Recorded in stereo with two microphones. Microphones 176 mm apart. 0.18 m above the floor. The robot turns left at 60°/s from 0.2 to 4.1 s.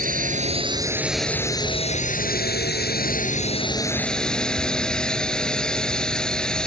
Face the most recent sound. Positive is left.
turn(degrees=5)